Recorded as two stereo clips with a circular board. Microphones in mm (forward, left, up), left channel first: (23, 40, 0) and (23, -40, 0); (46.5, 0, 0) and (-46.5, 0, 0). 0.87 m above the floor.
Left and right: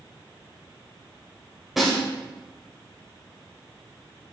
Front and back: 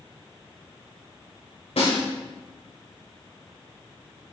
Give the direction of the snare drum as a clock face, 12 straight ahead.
12 o'clock.